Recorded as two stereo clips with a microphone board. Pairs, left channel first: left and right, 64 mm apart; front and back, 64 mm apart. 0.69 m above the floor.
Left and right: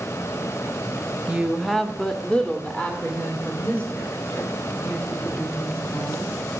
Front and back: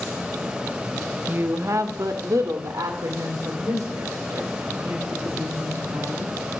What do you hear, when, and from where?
1.3 s a woman speaking: 145° right, 0.6 m; by 6.4 s 150° left, 5 m